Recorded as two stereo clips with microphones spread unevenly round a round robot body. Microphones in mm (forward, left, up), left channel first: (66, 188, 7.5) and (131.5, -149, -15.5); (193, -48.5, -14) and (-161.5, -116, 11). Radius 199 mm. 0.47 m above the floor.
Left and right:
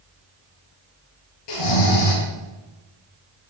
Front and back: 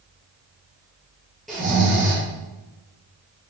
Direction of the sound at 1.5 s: 100° left.